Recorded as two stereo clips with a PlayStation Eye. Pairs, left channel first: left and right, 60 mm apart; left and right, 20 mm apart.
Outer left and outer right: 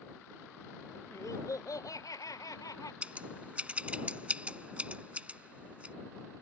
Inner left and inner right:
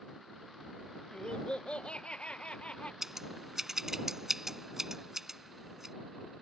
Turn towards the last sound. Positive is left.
turn(degrees=-20)  # may be behind; listen again after turning